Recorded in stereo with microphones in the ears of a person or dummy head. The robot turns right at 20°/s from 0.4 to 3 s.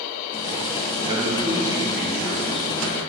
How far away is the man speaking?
About 2 m.